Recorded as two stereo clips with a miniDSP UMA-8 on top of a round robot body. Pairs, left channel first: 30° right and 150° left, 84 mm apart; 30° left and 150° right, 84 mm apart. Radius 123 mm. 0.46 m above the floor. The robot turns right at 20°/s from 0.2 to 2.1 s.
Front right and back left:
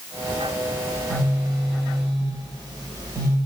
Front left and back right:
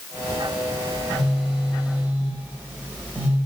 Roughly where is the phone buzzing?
Behind left.